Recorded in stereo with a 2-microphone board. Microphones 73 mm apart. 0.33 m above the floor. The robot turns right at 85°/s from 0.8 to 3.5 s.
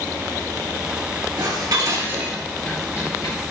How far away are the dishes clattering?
About 4 m.